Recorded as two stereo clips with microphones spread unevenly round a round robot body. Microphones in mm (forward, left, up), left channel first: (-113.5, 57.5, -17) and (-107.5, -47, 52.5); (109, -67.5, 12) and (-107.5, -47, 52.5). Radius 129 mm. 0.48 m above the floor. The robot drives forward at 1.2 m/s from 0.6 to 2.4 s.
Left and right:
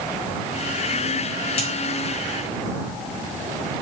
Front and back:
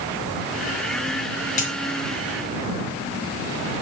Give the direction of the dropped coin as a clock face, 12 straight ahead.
10 o'clock.